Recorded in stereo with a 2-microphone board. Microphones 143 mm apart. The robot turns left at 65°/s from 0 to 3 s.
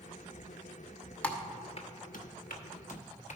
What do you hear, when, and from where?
1.2 s typing on a keyboard: 10° left (ahead or behind), 1.0 m; by 3.4 s 55° left (ahead or behind), 1.0 m